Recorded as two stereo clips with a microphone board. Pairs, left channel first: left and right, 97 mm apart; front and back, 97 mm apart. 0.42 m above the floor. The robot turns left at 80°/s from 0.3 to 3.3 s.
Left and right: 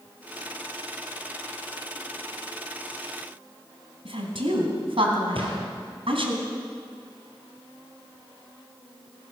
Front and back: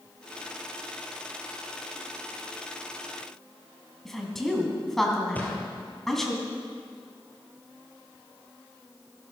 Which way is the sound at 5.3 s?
70° right.